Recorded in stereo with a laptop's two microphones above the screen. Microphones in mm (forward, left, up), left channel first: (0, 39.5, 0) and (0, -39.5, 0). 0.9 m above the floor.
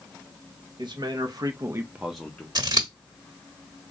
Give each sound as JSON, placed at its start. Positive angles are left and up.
{"t": 0.8, "sound": "a man speaking", "side_deg": -70, "distance_m": 1.0}
{"t": 2.5, "sound": "scissors", "side_deg": -60, "distance_m": 1.2}